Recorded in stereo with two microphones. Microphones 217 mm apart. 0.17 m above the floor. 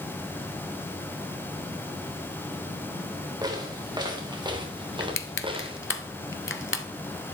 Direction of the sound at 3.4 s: 20° right (ahead or behind).